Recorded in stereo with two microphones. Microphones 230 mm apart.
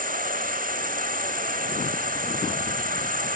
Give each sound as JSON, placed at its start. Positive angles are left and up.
{"t": 0.0, "sound": "an insect", "side_deg": -35, "distance_m": 0.8}